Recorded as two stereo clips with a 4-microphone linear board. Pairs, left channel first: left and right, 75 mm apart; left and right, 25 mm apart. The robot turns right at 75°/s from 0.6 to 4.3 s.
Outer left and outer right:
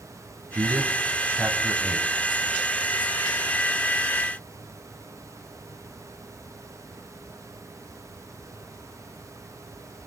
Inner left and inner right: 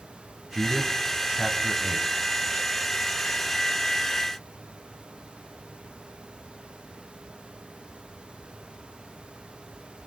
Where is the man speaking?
40° right (ahead or behind), 1.5 m; by 2.1 s centre (ahead or behind), 1.5 m.